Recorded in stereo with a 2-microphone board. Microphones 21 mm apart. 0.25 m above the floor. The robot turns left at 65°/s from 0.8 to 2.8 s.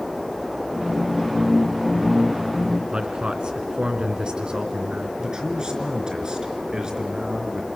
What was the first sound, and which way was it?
A man speaking, 45° right (ahead or behind).